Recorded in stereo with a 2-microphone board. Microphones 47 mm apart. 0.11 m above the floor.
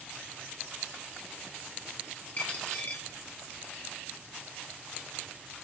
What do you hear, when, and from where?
2.4 s a dropped coin: 35° left (ahead or behind), 1.2 m